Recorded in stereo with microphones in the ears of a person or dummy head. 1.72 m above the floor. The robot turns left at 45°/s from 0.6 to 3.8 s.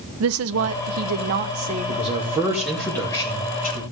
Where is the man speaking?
140° right, 2.5 m; by 3.8 s 135° left, 2.5 m.